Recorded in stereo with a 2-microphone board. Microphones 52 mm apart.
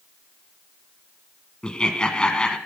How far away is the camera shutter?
I don't hear a camera shutter.